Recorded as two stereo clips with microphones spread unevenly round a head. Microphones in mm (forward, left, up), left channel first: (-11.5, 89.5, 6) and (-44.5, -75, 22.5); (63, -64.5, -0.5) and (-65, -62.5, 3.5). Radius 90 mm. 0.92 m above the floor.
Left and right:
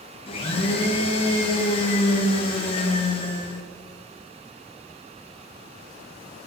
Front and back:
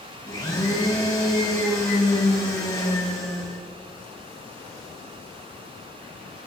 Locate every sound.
0.3 s a blender: 50° left, 0.9 m